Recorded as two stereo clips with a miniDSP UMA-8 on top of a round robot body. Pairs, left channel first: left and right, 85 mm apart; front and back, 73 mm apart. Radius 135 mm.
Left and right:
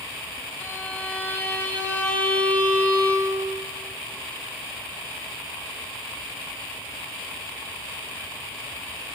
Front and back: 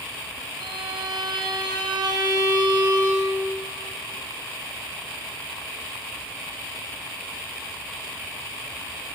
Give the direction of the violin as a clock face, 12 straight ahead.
7 o'clock.